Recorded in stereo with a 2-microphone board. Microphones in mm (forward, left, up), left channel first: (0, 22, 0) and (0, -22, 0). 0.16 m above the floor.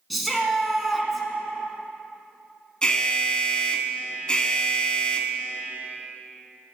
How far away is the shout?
About 1.3 m.